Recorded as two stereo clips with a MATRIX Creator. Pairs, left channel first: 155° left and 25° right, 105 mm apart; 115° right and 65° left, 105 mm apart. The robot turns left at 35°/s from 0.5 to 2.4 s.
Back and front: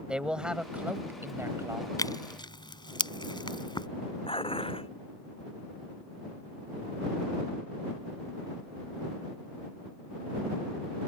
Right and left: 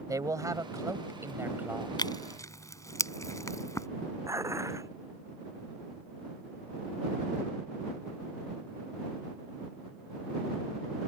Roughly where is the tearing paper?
Behind right.